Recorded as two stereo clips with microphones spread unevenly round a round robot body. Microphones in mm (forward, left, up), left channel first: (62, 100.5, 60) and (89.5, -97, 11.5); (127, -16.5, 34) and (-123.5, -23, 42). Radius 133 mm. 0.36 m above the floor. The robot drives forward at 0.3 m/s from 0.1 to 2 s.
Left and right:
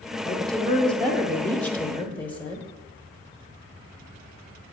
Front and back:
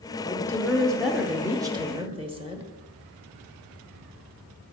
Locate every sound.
0.2 s a woman speaking: 25° right, 0.9 m; by 2.7 s 155° right, 0.9 m